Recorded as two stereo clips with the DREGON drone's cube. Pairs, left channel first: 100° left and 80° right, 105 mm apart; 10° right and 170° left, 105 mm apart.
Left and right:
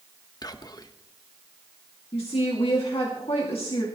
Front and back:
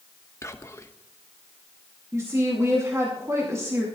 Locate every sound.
0.4 s whispering: 50° left, 1.0 m
2.1 s a woman speaking: 110° left, 2 m